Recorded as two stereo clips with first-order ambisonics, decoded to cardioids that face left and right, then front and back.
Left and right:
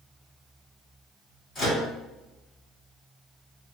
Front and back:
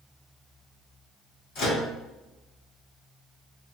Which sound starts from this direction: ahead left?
A microwave, at 1.6 s.